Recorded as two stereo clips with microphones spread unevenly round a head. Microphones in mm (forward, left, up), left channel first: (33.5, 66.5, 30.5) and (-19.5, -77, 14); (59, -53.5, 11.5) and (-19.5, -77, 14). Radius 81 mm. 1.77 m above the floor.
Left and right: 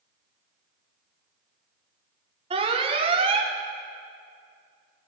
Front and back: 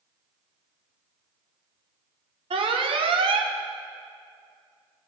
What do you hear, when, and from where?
2.5 s an alarm: 165° right, 1.1 m